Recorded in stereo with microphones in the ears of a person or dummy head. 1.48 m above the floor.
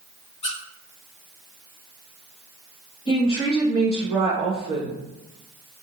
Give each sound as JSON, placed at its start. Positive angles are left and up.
{"t": 0.4, "sound": "a squeak", "side_deg": 35, "distance_m": 1.0}
{"t": 3.1, "sound": "a woman speaking", "side_deg": 30, "distance_m": 1.7}